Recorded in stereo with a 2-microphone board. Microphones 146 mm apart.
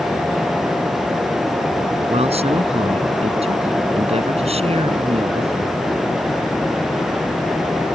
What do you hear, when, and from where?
2.1 s a man speaking: 45° right (ahead or behind)